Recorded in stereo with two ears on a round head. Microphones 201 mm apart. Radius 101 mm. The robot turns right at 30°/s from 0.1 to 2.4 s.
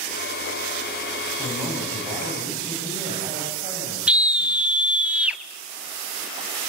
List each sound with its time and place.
1.4 s a man speaking: 175° left, 8.5 m; by 4.8 s 150° right, 8.5 m
4.1 s a scream: 5° right (ahead or behind), 1.4 m